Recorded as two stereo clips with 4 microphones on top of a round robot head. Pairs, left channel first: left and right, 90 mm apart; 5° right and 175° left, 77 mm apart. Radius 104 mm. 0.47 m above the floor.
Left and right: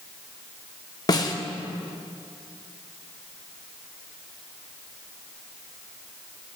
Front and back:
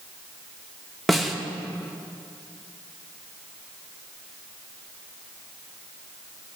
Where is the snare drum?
80° left, 0.9 m.